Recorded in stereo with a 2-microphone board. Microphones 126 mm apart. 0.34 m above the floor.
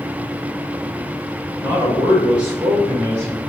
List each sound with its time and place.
1.6 s a man speaking: 30° right (ahead or behind), 1.7 m; by 3.5 s 15° left (ahead or behind), 1.9 m